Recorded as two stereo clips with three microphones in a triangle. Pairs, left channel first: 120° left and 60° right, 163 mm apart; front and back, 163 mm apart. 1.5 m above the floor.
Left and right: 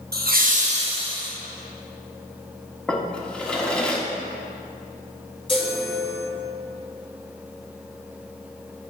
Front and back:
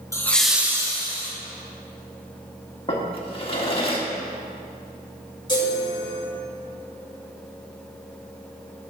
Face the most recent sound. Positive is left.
turn(degrees=60)